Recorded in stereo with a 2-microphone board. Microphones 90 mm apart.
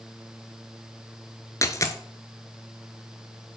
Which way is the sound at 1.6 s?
35° left (ahead or behind).